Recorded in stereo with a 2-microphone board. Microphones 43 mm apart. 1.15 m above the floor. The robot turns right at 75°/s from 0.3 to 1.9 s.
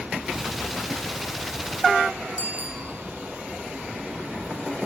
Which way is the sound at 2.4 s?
45° right (ahead or behind).